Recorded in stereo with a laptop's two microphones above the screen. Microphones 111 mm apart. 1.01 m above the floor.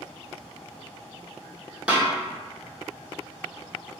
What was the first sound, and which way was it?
A snare drum, 10° right (ahead or behind).